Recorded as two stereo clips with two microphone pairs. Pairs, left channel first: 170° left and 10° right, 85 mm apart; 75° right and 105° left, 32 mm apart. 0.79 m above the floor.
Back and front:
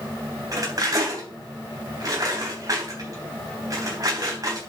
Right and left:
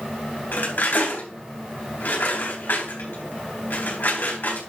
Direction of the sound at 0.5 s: 60° right.